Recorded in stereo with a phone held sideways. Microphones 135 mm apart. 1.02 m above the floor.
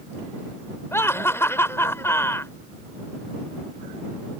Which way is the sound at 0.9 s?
15° left (ahead or behind).